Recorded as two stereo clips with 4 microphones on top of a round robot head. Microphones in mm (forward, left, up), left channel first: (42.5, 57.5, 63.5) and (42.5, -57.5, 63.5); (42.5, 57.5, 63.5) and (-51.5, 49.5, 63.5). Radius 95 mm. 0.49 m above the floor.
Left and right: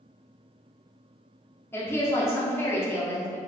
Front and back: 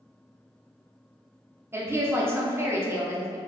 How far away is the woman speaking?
About 0.8 m.